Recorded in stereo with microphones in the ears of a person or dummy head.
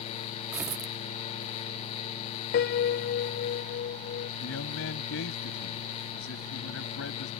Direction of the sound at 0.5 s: 10° right (ahead or behind).